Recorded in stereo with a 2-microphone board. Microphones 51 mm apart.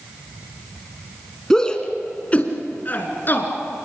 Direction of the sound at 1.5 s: 10° left (ahead or behind).